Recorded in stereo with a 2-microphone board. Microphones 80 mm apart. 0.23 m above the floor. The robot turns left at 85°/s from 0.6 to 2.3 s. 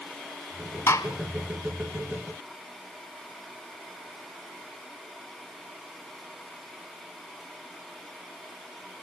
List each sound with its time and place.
0.9 s a gunshot: 40° left (ahead or behind), 1.3 m; by 1.1 s 50° left (ahead or behind), 1.3 m